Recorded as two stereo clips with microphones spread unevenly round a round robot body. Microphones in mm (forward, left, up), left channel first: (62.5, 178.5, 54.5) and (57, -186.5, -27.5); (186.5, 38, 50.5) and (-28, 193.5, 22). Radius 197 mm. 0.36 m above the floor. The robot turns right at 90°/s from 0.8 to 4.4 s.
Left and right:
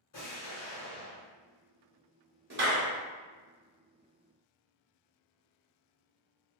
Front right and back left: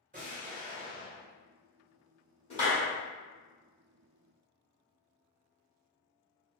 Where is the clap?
100° right, 0.9 m; by 2.9 s 65° right, 0.9 m.